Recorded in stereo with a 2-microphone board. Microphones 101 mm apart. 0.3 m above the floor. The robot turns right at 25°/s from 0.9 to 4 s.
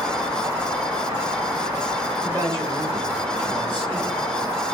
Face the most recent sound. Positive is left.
turn(degrees=-110)